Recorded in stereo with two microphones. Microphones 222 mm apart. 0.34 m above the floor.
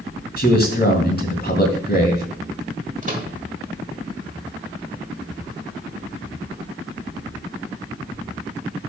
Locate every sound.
0.4 s a man speaking: 45° left (ahead or behind), 2.5 m
3.0 s a microwave: 35° right (ahead or behind), 1.3 m